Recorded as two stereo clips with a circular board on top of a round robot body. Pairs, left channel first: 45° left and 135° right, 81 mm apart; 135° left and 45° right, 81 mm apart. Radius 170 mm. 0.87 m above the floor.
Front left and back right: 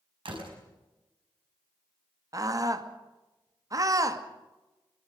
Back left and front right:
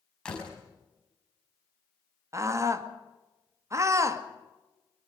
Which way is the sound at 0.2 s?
145° right.